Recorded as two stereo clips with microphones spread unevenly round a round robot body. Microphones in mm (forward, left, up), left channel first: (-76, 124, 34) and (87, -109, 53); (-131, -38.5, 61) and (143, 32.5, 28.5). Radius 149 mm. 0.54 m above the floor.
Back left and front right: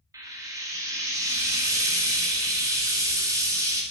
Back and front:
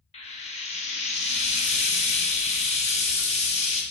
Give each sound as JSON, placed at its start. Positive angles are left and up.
{"t": 0.1, "sound": "frying", "azimuth_deg": -125, "distance_m": 1.1}